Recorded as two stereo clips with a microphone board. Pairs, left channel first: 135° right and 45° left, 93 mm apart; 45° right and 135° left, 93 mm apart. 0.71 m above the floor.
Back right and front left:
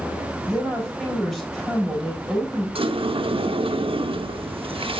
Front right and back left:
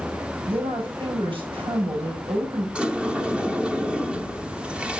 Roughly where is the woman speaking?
Behind left.